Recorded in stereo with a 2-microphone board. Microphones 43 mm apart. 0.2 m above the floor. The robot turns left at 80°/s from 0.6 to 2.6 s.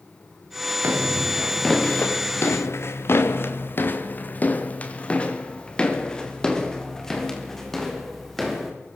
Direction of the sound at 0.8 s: 70° right (ahead or behind).